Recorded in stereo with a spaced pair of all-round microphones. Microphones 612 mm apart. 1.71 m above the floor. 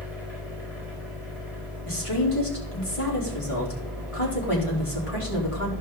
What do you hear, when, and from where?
0.0 s a machine running: 70° right (ahead or behind), 4.5 m
1.9 s a woman speaking: 60° left (ahead or behind), 4 m